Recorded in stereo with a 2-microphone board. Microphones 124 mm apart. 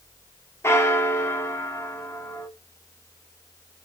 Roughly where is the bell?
Left.